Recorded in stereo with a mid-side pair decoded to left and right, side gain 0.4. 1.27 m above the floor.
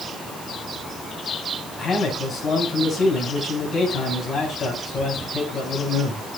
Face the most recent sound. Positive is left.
turn(degrees=45)